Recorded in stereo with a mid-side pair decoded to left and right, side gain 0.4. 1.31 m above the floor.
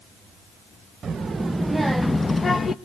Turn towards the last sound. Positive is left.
turn(degrees=45)